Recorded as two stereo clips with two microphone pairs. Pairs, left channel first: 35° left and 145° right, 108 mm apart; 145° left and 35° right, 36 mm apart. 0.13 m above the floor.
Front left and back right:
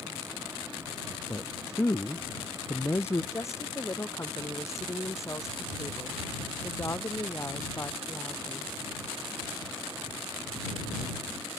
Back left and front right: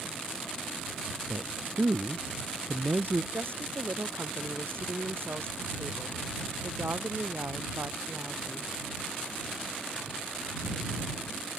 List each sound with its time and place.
1.3 s a man speaking: 30° right
3.3 s a woman speaking: 30° right